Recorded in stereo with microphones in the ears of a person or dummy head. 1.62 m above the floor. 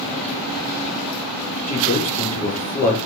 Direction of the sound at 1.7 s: 35° left (ahead or behind).